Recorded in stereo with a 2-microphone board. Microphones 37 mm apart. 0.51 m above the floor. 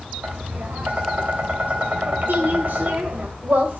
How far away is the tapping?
About 1.7 m.